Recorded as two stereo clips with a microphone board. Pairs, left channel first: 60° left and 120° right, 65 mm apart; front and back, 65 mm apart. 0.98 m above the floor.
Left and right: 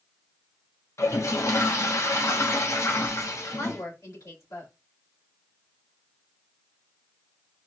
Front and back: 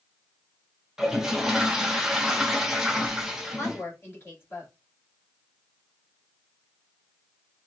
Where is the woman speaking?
50° left, 2 m.